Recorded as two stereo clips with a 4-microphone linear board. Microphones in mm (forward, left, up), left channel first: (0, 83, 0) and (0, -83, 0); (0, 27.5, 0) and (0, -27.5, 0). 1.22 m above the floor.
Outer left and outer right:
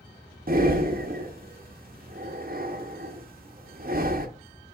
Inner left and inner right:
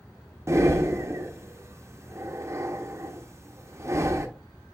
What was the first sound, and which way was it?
Breathing, 55° right (ahead or behind).